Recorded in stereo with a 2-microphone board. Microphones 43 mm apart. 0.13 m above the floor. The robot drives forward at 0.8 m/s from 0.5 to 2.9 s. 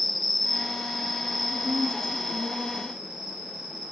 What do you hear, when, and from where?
0.0 s an insect: centre (ahead or behind), 0.9 m
1.5 s a woman speaking: 75° right (ahead or behind), 8.5 m; by 3.0 s 70° right (ahead or behind), 8.5 m